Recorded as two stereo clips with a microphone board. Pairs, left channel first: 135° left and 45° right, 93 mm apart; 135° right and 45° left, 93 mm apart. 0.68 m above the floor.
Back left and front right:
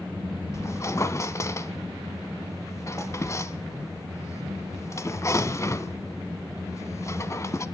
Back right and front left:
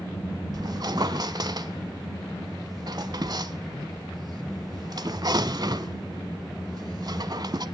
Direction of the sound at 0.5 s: 80° left.